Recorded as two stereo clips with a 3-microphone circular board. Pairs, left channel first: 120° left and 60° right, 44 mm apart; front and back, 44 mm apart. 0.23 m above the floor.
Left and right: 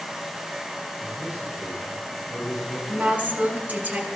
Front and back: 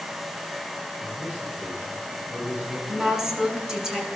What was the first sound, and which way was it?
A man speaking, 135° right.